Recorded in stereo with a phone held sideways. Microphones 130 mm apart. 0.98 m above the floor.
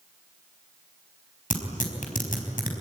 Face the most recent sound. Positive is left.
turn(degrees=85)